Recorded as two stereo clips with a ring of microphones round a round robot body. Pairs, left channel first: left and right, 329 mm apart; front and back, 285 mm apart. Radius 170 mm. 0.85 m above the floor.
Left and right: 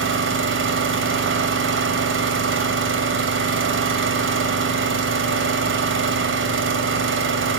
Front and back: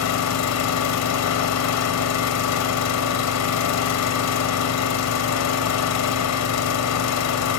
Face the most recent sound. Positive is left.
turn(degrees=-35)